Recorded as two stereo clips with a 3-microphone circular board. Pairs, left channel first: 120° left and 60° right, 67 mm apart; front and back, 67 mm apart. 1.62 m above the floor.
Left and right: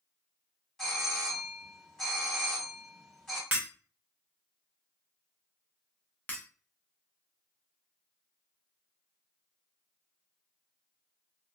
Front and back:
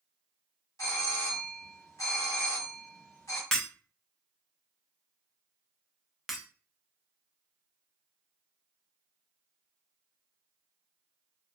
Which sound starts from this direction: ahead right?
Breaking glass, at 3.5 s.